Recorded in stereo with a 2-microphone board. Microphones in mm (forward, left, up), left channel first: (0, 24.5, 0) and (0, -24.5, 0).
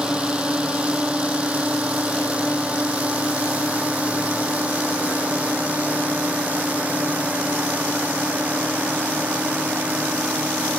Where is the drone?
20° right (ahead or behind); by 10.8 s 30° right (ahead or behind).